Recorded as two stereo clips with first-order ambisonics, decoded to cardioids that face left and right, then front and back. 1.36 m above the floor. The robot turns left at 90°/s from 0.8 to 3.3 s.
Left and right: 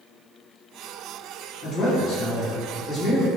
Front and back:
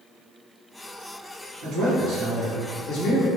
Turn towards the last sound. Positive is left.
turn(degrees=-5)